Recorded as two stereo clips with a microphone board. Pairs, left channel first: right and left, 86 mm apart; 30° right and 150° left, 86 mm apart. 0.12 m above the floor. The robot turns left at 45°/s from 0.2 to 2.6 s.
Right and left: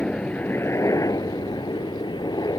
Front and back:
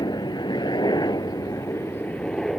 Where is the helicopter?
15° right; by 2.6 s 120° right.